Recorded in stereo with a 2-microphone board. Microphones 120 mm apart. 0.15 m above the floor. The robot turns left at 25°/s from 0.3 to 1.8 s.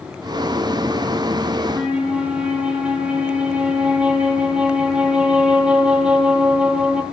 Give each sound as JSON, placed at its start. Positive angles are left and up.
{"t": 1.6, "sound": "a flute", "side_deg": -15, "distance_m": 1.5}